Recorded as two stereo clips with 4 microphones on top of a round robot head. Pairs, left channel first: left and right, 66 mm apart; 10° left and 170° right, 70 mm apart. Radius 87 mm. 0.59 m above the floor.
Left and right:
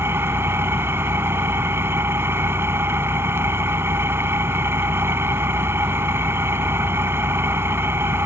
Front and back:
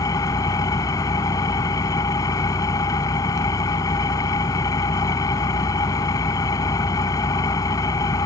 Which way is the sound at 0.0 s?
35° right.